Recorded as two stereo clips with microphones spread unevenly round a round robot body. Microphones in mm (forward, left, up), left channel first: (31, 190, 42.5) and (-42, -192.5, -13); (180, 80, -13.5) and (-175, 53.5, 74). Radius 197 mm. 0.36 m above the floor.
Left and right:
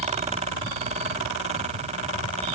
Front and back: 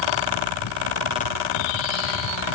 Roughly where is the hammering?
I don't hear hammering.